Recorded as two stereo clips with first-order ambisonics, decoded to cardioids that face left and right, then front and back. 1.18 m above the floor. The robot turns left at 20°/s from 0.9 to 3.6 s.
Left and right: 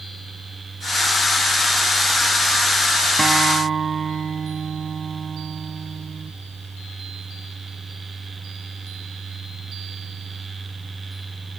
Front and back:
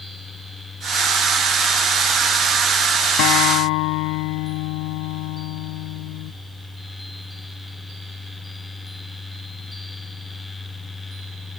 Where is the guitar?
10° right; by 6.3 s 20° right.